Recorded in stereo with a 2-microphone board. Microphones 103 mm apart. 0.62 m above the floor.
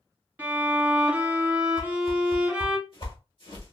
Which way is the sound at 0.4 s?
15° right (ahead or behind).